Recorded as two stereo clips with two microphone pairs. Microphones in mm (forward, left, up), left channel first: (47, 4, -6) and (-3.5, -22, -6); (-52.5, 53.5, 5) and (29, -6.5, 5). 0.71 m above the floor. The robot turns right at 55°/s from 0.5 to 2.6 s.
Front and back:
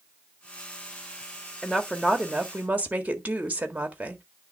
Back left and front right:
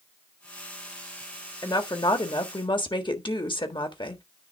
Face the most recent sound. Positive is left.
turn(degrees=150)